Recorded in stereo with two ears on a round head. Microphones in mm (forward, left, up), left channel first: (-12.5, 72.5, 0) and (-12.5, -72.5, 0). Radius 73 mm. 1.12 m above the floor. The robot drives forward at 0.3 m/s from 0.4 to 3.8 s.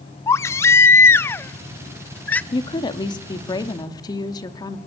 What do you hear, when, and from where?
0.3 s a baby crying: 15° left (ahead or behind), 0.5 m; by 2.4 s 10° left (ahead or behind), 0.8 m
2.5 s a woman speaking: 30° left (ahead or behind), 2 m; by 4.8 s 25° left (ahead or behind), 2.5 m